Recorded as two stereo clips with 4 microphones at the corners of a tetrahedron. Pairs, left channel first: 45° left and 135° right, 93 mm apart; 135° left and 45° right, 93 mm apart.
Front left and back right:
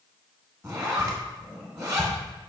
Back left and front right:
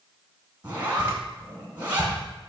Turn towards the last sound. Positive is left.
turn(degrees=-100)